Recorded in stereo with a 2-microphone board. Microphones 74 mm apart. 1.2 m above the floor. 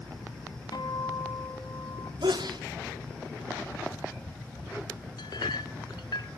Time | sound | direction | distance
0.7 | a guitar | 65° left (ahead or behind) | 2.5 m
2.2 | a sneeze | 80° right | 2.5 m
5.2 | a clink | 70° left (ahead or behind) | 1.5 m